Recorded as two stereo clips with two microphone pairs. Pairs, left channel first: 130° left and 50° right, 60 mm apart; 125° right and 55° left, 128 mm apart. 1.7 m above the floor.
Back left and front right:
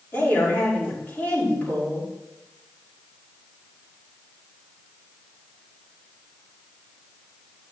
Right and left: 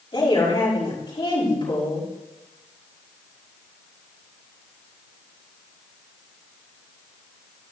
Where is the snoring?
I don't hear snoring.